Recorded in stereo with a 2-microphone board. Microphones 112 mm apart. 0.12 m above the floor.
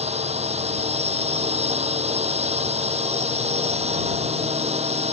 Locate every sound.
0.0 s a drone: 70° right (ahead or behind)